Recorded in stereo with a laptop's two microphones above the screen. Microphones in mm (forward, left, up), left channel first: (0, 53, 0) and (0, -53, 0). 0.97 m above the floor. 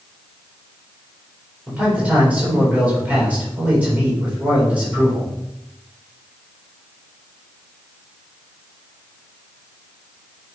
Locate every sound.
1.7 s a man speaking: 15° right (ahead or behind), 4 m